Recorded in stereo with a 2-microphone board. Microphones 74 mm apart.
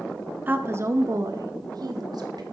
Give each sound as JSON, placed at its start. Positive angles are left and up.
{"t": 0.5, "sound": "a woman speaking", "side_deg": -25, "distance_m": 0.8}